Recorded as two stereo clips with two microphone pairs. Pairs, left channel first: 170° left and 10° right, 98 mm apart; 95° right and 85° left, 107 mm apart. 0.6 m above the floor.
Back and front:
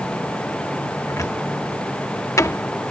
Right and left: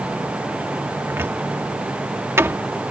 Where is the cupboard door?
135° left.